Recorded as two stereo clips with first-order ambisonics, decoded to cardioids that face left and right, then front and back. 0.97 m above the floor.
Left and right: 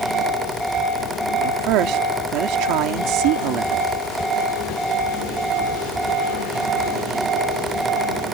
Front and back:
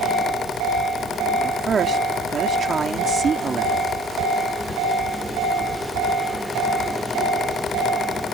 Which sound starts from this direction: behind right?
A woman speaking, at 1.4 s.